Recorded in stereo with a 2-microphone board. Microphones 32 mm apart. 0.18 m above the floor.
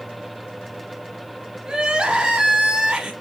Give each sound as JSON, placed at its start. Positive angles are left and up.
{"t": 1.6, "sound": "crying", "side_deg": -30, "distance_m": 1.1}